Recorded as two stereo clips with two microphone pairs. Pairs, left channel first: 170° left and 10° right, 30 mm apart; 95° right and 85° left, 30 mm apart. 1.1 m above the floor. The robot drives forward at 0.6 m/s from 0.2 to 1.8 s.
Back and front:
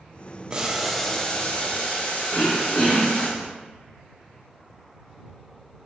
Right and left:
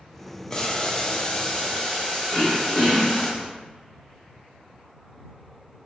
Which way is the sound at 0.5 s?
45° right.